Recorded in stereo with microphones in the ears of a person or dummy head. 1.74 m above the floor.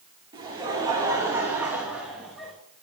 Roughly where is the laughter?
Right.